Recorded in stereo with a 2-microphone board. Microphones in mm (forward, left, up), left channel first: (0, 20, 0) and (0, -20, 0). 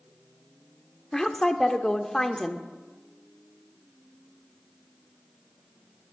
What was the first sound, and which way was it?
A woman speaking, 15° left (ahead or behind).